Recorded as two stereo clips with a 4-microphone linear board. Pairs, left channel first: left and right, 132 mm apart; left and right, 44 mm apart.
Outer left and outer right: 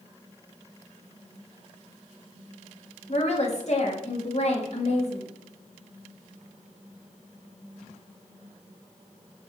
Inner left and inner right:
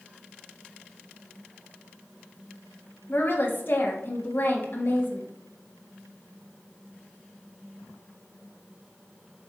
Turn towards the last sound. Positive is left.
turn(degrees=55)  # may be behind; listen again after turning